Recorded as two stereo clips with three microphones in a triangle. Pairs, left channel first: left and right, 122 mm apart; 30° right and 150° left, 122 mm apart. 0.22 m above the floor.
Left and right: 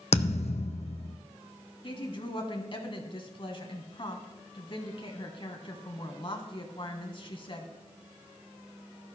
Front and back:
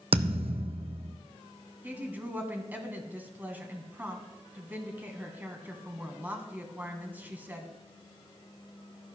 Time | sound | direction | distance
0.1 | a thud | 115° left | 1.0 m
1.8 | a woman speaking | 80° left | 1.5 m